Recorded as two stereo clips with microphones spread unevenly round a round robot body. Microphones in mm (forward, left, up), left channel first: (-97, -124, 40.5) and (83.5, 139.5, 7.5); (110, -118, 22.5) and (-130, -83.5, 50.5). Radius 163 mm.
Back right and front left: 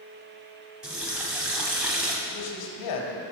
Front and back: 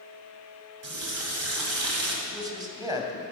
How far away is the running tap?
About 1.8 m.